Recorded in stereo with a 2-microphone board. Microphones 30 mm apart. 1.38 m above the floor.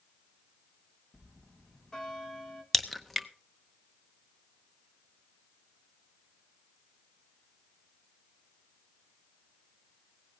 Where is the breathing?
I don't hear breathing.